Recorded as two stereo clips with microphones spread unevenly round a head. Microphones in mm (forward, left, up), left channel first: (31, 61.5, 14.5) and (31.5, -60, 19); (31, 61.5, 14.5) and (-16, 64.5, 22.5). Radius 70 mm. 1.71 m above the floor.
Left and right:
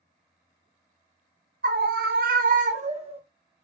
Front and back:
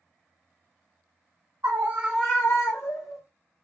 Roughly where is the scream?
Behind right.